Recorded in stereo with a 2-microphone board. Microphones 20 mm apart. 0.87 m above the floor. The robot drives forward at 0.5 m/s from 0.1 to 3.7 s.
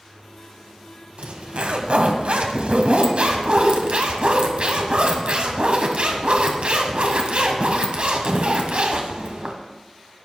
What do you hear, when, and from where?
1.2 s a zipper: 65° right (ahead or behind), 1.6 m; by 9.6 s 60° right (ahead or behind), 1.7 m